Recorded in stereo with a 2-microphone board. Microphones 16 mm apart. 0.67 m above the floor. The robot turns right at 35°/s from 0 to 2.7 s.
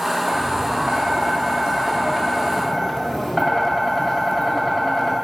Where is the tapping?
90° right, 2.5 m; by 5.1 s 5° right, 2.5 m.